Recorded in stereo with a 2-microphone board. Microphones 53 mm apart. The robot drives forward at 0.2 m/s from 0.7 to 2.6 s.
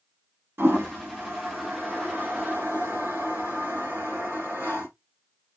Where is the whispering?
No whispering in this recording.